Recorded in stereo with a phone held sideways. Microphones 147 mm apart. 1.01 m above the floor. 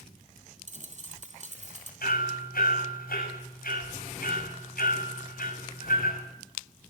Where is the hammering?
85° left, 6.5 m.